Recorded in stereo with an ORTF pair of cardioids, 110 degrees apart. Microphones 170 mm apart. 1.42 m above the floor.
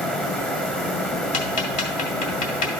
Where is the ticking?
55° left, 1.8 m.